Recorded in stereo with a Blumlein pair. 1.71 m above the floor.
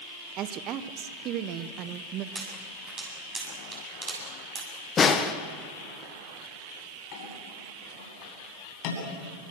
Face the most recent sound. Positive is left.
turn(degrees=45)